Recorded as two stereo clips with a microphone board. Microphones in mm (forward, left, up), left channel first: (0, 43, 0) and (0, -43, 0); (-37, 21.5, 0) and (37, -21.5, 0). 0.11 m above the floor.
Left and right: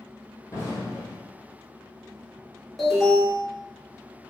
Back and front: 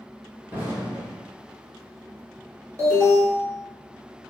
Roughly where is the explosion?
Ahead left.